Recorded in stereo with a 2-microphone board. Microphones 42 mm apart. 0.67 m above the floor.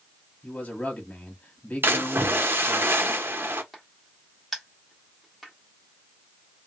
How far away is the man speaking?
About 1.4 m.